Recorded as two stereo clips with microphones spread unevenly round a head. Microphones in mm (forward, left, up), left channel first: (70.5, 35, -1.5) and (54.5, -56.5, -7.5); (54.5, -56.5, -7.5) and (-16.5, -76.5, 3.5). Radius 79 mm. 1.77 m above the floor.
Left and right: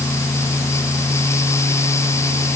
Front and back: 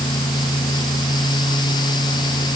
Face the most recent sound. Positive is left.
No sound to turn to.